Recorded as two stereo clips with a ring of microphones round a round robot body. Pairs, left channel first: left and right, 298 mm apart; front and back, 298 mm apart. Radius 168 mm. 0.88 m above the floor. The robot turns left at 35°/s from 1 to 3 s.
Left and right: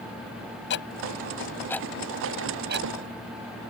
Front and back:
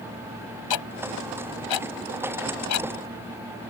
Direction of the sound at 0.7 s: 30° left.